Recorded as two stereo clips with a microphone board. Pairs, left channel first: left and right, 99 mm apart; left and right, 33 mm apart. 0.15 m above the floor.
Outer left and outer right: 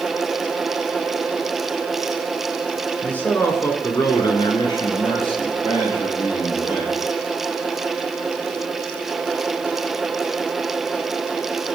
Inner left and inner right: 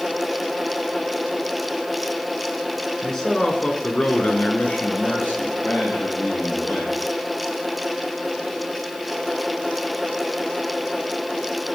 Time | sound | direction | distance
3.0 | a man speaking | 15° left (ahead or behind) | 1.4 m